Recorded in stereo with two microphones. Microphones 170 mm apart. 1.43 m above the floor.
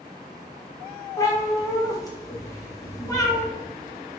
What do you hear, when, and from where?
1.2 s a cat meowing: 20° left (ahead or behind), 0.6 m